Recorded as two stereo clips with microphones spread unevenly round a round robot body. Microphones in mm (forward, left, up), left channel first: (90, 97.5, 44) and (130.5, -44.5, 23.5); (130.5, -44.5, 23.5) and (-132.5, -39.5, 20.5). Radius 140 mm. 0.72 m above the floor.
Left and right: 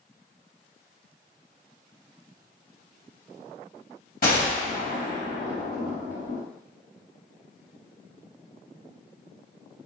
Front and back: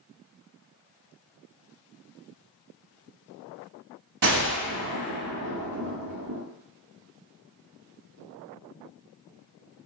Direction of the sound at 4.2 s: 145° left.